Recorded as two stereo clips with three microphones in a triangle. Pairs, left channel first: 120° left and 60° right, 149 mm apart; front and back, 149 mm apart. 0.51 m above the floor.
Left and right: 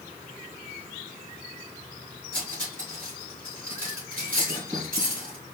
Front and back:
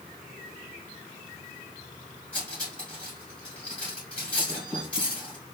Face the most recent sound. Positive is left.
turn(degrees=-85)